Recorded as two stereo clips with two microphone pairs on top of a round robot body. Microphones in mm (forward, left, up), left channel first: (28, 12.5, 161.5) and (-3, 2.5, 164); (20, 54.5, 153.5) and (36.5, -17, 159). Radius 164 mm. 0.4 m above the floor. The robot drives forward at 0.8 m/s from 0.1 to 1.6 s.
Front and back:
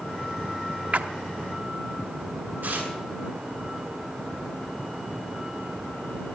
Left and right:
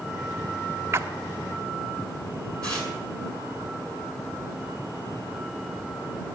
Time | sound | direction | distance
0.9 | a splash | 125° right | 1.0 m
2.6 | tearing paper | straight behind | 7 m